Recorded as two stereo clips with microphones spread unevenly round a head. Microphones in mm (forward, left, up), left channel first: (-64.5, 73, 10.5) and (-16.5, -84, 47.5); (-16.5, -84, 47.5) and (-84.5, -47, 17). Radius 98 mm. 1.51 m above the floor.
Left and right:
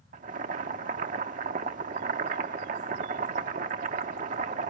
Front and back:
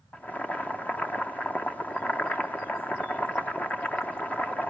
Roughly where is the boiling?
Right.